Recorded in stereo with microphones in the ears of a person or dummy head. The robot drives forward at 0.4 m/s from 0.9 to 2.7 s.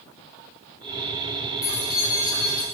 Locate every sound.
1.6 s keys jangling: 25° left (ahead or behind), 2.5 m; by 2.6 s 30° left (ahead or behind), 2 m